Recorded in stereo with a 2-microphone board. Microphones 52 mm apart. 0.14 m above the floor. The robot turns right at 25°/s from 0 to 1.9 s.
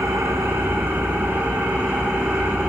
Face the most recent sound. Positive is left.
turn(degrees=-15)